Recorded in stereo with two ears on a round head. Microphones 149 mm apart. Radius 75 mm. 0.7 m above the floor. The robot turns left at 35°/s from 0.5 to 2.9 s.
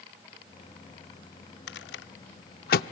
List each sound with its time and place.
1.7 s a rattle: 75° left (ahead or behind), 0.5 m; by 2.8 s 55° left (ahead or behind), 0.5 m